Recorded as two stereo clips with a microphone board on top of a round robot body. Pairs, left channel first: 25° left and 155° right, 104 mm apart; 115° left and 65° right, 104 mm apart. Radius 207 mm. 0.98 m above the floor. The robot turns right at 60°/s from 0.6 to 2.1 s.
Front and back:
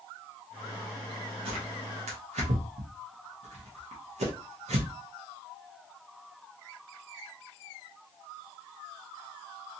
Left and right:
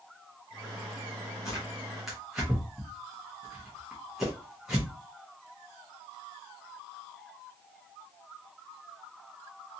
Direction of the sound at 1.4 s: 170° left.